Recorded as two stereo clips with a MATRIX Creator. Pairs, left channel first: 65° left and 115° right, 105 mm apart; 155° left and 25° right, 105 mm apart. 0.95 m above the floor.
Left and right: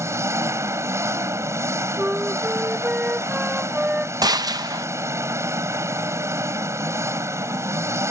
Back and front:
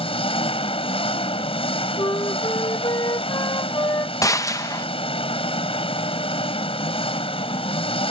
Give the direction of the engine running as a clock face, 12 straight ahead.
6 o'clock.